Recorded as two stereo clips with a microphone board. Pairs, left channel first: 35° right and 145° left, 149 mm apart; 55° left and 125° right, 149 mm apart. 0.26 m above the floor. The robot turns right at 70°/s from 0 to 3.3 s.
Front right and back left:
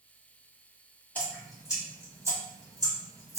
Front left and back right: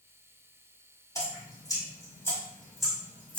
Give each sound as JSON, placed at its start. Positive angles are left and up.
{"t": 1.1, "sound": "dripping", "azimuth_deg": 30, "distance_m": 1.3}